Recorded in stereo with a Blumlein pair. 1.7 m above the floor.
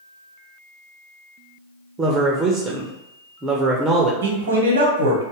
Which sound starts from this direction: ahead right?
A man speaking, at 4.2 s.